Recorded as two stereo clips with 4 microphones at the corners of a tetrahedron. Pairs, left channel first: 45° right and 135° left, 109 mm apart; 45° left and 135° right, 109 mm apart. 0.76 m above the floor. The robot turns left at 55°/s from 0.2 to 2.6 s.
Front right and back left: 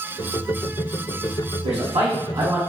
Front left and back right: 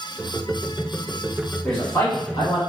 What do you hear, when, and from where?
1.6 s a man speaking: 125° left, 1.5 m; by 2.6 s 75° left, 1.5 m